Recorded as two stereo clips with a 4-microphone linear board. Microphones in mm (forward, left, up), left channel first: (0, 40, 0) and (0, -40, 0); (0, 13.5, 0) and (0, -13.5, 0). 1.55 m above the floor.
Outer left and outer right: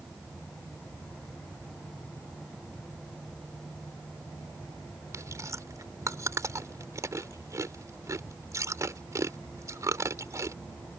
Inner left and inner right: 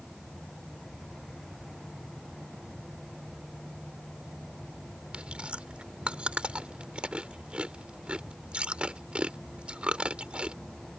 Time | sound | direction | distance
5.1 | chewing | 40° right (ahead or behind) | ?